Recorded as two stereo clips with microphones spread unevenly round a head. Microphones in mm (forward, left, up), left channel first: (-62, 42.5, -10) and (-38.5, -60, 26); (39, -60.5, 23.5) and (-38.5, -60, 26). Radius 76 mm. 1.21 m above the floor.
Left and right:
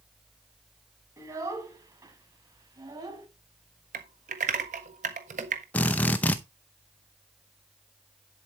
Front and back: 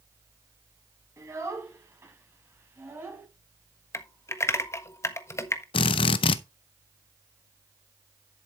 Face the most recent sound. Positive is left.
turn(degrees=15)